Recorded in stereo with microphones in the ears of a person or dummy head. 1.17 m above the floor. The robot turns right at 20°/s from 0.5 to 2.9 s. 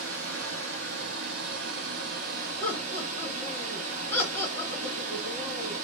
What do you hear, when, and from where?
0.0 s running water: 90° right, 0.7 m; by 5.9 s 40° right, 0.7 m
2.6 s laughter: 15° left (ahead or behind), 1.3 m; by 5.8 s 20° left (ahead or behind), 1.3 m